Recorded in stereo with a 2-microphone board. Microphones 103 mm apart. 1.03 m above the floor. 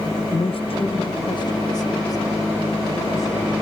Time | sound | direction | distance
0.3 | a man speaking | 50° left (ahead or behind) | 0.6 m